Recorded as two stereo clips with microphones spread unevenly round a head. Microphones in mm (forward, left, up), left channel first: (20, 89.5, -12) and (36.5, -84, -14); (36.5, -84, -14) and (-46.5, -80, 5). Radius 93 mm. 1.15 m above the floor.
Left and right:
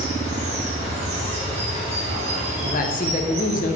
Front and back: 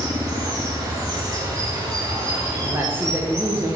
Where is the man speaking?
100° left, 0.8 m.